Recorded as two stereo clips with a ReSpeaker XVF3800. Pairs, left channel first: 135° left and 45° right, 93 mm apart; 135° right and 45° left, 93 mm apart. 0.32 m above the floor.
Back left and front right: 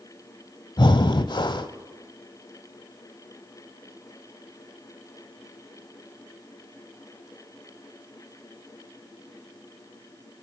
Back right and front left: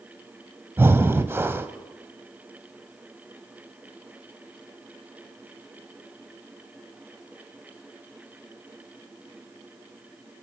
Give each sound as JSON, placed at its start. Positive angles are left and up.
{"t": 0.8, "sound": "breathing", "azimuth_deg": 110, "distance_m": 0.7}